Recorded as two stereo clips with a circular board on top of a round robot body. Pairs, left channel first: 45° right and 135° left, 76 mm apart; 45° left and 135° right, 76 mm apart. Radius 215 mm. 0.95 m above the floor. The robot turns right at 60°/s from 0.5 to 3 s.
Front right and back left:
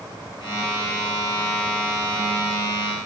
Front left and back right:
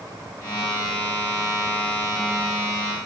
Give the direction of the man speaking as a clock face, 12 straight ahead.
No man speaking in this recording.